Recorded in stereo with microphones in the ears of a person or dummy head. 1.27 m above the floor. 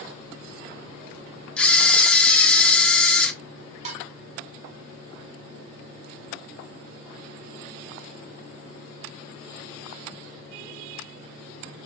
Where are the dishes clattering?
40° right (ahead or behind), 1.7 m.